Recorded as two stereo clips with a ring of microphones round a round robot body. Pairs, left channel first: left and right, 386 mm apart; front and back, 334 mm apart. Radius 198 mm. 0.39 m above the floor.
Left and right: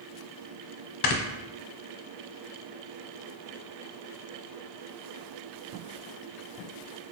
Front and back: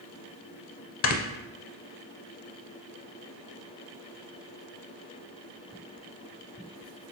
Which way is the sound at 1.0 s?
50° left.